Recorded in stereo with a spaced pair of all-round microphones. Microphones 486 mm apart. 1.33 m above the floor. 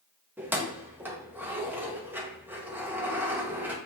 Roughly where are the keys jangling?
Centre.